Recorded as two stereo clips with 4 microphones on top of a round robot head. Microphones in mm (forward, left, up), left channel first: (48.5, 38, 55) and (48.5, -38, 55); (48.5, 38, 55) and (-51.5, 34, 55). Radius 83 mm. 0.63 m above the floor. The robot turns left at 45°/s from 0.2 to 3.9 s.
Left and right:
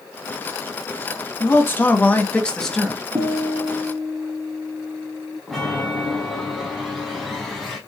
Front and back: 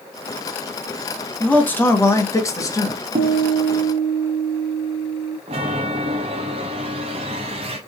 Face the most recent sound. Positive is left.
turn(degrees=180)